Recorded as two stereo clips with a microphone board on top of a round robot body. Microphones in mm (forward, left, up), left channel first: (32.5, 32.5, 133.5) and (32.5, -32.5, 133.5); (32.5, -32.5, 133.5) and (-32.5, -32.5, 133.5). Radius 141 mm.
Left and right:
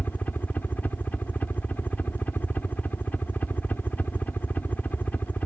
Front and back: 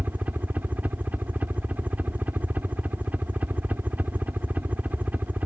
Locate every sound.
0.0 s a helicopter: 135° left